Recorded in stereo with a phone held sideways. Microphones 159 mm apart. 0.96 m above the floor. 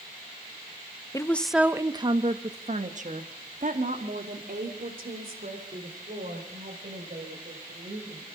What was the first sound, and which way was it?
A woman speaking, 20° left (ahead or behind).